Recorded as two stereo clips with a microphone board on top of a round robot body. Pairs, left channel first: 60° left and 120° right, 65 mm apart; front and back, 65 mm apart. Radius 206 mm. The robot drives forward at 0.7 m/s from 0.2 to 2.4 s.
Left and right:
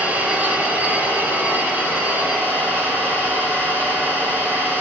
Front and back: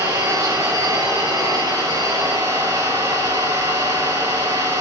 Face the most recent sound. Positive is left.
turn(degrees=175)